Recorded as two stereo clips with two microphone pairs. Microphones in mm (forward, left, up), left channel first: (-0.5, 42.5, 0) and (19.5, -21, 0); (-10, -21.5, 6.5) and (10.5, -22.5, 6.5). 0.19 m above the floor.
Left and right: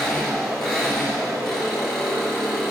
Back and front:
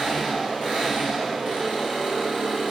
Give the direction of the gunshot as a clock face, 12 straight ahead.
No gunshot in this recording.